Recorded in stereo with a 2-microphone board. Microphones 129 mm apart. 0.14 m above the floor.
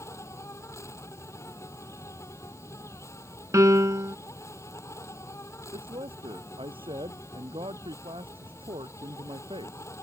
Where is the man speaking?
45° right (ahead or behind).